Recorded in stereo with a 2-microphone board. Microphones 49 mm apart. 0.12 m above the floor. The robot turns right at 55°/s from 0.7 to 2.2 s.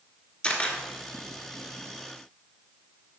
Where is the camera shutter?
25° left (ahead or behind), 1.6 m; by 0.8 s 30° left (ahead or behind), 1.6 m.